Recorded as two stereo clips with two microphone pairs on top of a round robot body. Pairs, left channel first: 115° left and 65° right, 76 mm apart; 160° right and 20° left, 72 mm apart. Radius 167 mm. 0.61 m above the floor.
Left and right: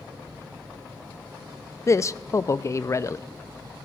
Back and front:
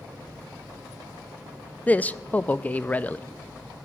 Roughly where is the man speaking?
Behind left.